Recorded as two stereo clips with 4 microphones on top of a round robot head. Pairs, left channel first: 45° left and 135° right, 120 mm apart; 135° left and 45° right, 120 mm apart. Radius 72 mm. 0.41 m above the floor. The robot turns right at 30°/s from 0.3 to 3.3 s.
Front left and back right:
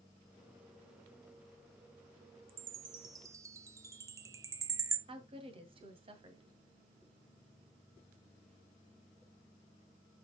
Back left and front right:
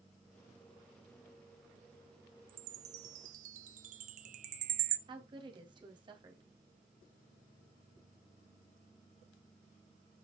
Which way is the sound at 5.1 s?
95° right.